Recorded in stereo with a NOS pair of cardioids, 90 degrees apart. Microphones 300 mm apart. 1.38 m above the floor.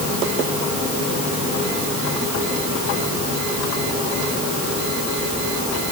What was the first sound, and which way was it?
Only background noise.